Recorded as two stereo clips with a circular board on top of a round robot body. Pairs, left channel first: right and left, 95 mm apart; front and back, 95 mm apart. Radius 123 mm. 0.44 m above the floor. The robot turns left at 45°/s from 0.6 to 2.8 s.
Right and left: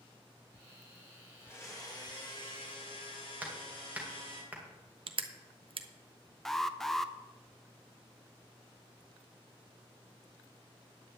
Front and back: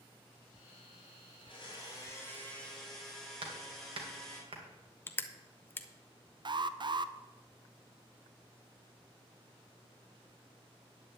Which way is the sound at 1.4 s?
25° right.